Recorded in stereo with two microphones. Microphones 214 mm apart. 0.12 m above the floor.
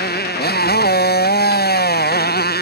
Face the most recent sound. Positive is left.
turn(degrees=45)  # may be behind; listen again after turning